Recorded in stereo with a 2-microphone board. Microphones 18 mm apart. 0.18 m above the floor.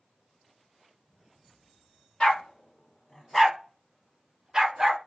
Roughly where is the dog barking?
Left.